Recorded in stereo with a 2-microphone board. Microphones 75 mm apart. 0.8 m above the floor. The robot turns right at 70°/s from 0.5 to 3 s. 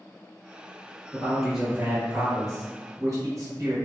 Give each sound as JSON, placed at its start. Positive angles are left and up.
{"t": 1.1, "sound": "a man speaking", "azimuth_deg": 160, "distance_m": 0.9}